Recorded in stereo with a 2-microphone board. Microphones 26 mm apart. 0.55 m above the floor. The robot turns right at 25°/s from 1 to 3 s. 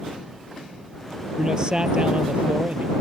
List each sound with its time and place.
1.4 s a man speaking: 155° right; by 2.9 s 115° right